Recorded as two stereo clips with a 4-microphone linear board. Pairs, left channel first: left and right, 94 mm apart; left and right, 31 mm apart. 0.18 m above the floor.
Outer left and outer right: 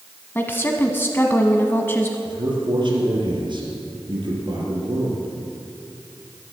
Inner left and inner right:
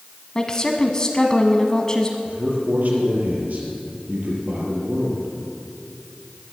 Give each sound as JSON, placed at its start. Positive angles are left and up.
{"t": 0.3, "sound": "a woman speaking", "side_deg": 25, "distance_m": 1.1}
{"t": 2.2, "sound": "a man speaking", "side_deg": -55, "distance_m": 4.5}